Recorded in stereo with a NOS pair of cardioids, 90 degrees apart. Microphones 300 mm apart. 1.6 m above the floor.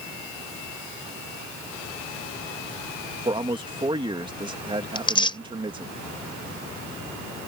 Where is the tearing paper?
15° left.